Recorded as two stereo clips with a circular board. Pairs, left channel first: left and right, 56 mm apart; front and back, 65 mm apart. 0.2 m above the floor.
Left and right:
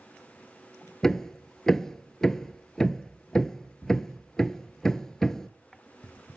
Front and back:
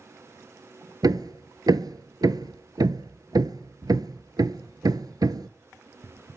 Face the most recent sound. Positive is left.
turn(degrees=170)